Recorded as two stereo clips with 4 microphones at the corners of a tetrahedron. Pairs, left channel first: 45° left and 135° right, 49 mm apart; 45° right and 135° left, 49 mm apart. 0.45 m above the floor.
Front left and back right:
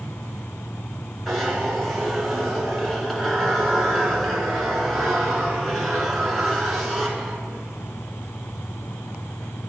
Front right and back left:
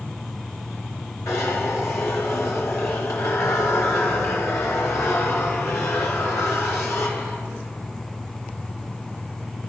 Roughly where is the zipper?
Ahead right.